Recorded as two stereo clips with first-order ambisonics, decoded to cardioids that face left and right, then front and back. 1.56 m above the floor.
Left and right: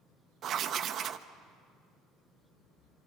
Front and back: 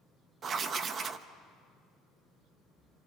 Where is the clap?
No clap in this recording.